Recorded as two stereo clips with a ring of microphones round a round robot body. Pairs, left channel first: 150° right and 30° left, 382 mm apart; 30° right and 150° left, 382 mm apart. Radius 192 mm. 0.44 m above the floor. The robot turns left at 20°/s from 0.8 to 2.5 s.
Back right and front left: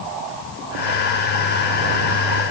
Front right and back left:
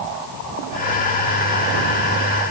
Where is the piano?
No piano in this recording.